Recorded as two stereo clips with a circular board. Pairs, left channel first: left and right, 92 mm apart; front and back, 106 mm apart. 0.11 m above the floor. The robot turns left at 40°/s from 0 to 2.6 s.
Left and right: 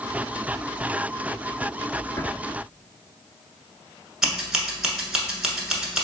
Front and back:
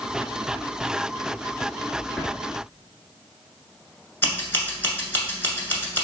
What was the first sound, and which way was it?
A drawer, 85° left.